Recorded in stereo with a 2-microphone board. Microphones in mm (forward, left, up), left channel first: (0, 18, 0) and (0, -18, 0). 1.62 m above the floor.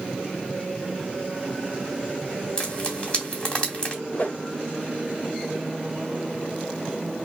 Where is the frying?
25° left (ahead or behind), 1.9 m.